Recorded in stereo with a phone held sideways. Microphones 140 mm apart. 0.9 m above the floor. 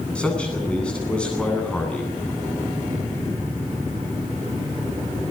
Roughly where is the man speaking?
Centre.